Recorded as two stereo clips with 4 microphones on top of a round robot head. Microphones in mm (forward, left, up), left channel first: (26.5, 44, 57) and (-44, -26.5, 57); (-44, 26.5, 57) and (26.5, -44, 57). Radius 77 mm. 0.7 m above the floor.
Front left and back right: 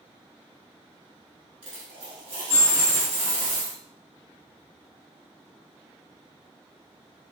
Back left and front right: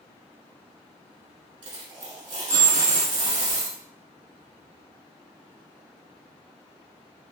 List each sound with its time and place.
1.6 s a dropped coin: 90° right, 1.4 m